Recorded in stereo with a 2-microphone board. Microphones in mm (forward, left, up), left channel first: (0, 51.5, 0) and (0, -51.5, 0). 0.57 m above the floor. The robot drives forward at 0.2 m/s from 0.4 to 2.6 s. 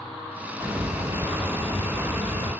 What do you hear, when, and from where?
0.6 s a hiss: 35° right (ahead or behind), 1.8 m; by 2.5 s 30° right (ahead or behind), 2 m